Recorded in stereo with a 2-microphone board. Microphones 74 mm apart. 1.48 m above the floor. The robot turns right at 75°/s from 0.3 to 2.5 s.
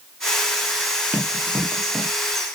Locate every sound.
1.1 s running footsteps: 25° right (ahead or behind), 1.6 m; by 2.1 s 5° left (ahead or behind), 1.6 m